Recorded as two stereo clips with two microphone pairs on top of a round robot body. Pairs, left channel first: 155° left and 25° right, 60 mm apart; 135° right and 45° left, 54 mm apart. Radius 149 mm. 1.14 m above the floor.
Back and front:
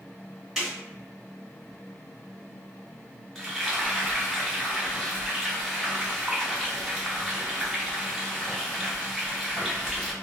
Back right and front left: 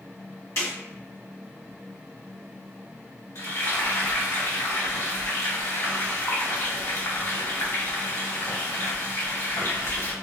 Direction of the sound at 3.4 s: 120° right.